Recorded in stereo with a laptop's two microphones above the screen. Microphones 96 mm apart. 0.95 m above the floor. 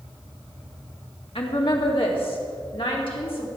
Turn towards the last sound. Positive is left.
turn(degrees=70)  # may be behind; listen again after turning